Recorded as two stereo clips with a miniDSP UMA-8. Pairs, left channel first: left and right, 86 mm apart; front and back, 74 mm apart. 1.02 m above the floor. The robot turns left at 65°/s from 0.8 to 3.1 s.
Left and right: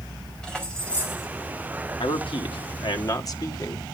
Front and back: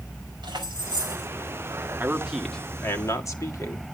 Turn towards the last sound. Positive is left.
turn(degrees=45)